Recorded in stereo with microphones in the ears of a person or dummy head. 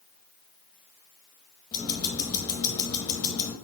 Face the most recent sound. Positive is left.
turn(degrees=20)  # may be behind; listen again after turning